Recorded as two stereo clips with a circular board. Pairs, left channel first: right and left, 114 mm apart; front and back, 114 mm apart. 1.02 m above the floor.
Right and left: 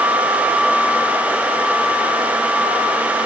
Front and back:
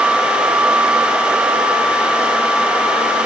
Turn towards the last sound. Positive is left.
No sound to turn to.